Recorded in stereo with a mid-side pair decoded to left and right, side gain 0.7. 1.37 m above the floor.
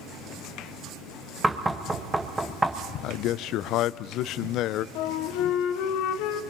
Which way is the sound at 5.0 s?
70° left.